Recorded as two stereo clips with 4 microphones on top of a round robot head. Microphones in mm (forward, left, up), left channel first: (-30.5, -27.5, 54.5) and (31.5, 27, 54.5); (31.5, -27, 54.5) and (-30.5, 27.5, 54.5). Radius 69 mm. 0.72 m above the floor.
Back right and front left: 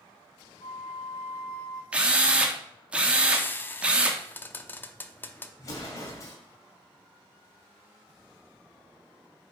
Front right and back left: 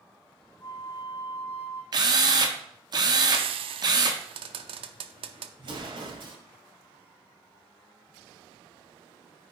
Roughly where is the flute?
Right.